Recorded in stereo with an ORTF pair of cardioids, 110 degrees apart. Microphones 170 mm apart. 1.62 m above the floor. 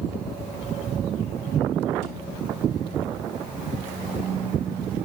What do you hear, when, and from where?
2.0 s a thud: 70° right, 3.5 m